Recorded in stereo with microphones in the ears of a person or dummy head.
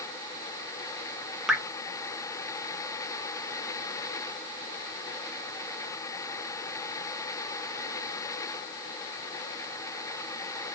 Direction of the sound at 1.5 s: Centre (ahead or behind).